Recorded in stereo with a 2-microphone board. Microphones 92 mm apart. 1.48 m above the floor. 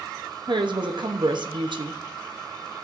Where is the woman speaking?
60° right (ahead or behind), 0.8 m.